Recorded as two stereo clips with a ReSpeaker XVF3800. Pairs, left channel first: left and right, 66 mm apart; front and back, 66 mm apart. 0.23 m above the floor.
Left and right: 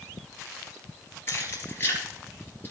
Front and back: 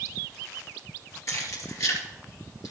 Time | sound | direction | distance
1.3 | keys jangling | 40° left | 3 m